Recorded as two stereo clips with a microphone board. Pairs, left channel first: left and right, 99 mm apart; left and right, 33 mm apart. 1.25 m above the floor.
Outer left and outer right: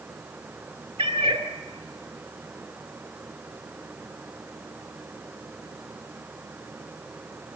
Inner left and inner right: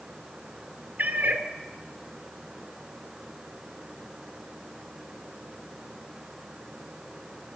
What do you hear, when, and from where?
1.0 s a cat meowing: 60° right (ahead or behind), 1.9 m